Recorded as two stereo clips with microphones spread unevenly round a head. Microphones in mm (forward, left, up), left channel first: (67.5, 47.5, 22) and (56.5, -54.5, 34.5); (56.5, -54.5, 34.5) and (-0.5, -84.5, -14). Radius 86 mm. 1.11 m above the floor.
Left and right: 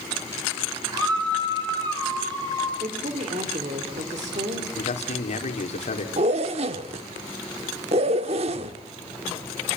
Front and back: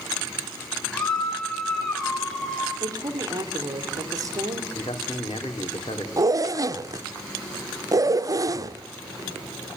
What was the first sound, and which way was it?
A scream, 50° right.